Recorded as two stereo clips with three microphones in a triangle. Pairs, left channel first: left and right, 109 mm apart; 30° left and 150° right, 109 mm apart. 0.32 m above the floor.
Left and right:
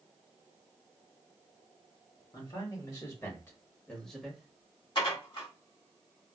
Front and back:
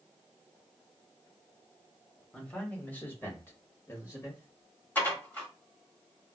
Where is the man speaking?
105° left, 1.4 m; by 4.8 s 15° right, 1.4 m.